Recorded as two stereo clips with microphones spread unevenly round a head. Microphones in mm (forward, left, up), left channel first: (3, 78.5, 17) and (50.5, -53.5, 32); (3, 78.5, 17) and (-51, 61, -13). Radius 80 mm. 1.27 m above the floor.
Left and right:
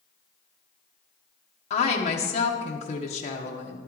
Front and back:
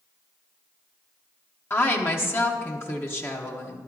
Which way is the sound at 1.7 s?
75° left.